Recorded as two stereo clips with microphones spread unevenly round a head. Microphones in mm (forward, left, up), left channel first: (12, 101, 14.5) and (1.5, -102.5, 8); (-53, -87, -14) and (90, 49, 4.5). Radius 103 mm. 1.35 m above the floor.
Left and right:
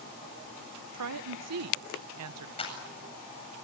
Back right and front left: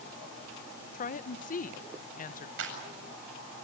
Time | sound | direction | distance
0.9 | a woman speaking | 85° right | 0.8 m
2.6 | a clap | 25° left | 8 m